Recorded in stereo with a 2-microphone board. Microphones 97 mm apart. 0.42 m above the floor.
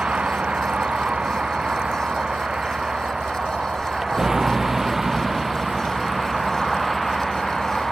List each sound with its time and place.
0.0 s a vehicle: 10° right (ahead or behind); by 7.9 s centre (ahead or behind)